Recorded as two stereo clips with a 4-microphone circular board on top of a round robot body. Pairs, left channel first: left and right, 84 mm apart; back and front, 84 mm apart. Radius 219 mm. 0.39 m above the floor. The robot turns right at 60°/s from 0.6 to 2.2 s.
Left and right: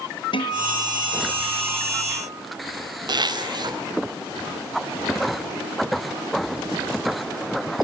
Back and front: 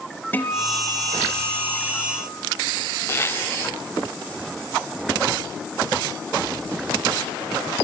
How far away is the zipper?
About 4 m.